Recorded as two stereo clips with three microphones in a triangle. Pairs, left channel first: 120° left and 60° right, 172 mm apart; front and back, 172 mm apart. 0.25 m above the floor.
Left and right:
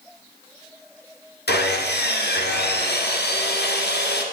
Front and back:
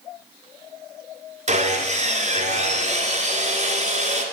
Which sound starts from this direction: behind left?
Sawing, at 1.5 s.